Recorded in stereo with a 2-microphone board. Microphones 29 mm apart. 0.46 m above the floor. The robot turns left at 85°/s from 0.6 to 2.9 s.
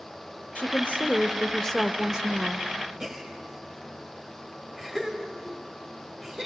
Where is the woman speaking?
105° left, 1.2 m; by 2.7 s 70° right, 1.2 m.